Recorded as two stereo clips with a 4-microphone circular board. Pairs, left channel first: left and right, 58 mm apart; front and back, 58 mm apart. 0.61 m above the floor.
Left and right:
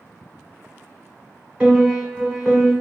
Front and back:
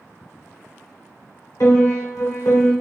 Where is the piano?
20° right, 1.4 m.